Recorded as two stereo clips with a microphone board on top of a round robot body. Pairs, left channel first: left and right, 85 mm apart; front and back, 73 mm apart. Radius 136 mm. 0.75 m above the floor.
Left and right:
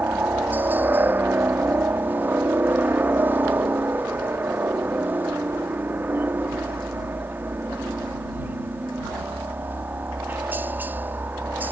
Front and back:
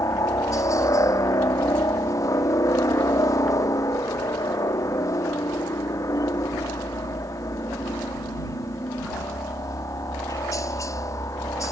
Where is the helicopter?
25° right.